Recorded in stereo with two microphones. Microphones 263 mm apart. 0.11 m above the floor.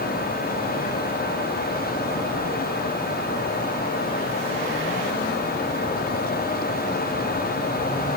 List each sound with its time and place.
Only background noise.